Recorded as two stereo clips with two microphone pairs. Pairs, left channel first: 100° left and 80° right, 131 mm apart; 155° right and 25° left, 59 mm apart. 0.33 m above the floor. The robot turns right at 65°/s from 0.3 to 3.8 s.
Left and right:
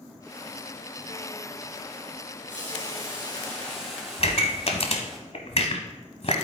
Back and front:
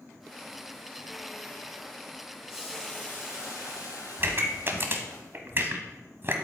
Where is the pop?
70° left, 1.2 m.